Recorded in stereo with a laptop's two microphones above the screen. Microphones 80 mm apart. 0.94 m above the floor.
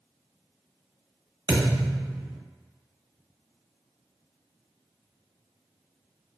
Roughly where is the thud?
Right.